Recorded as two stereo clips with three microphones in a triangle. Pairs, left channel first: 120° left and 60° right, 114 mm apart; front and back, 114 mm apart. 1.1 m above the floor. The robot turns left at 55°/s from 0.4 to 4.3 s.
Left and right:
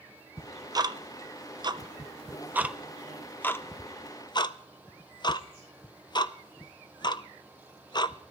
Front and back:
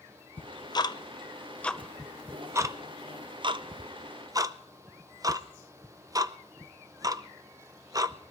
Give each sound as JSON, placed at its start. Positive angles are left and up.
{"t": 0.4, "sound": "ticking", "azimuth_deg": -5, "distance_m": 0.6}